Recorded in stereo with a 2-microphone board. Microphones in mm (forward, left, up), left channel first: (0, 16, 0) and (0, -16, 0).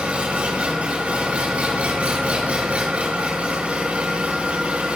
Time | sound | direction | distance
0.0 | an engine running | 45° right (ahead or behind) | 4.5 m